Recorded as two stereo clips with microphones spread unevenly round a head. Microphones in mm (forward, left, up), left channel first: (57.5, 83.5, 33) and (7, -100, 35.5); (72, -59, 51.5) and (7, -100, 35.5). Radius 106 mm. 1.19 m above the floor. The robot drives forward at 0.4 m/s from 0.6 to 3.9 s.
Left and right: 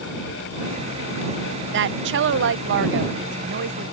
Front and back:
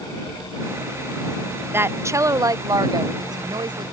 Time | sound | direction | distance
1.7 | a woman speaking | 95° right | ?